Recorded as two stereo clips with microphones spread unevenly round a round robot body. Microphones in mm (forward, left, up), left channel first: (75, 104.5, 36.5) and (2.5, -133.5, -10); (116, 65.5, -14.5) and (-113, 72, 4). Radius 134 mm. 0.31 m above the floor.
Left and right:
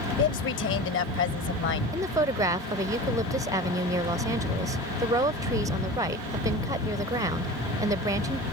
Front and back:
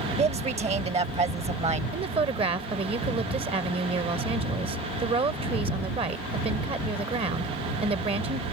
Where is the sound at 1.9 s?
135° right.